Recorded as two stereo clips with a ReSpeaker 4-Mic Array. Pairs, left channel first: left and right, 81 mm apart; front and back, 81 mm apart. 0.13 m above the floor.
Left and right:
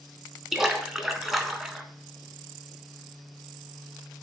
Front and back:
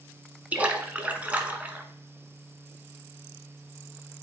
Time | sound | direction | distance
0.5 | a splash | 170° right | 0.7 m